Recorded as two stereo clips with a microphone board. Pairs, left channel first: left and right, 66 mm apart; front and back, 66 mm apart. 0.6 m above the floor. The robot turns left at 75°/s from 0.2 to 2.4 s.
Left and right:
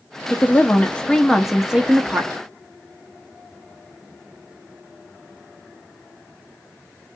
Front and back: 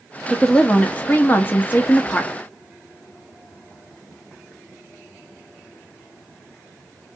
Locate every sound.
0.3 s a woman speaking: 85° left, 0.9 m; by 2.3 s 65° right, 0.9 m